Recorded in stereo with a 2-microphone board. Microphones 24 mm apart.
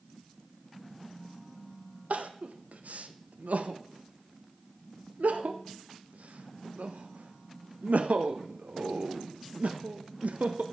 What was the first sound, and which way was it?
Crying, 85° right.